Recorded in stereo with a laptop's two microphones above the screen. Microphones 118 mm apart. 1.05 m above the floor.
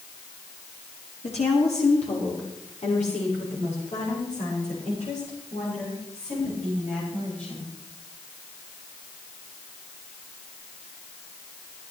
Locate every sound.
1.2 s a woman speaking: 65° left (ahead or behind), 2 m; by 7.7 s 80° left, 7 m